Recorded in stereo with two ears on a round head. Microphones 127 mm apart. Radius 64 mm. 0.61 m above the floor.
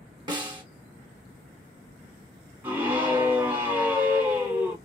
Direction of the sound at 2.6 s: 15° right (ahead or behind).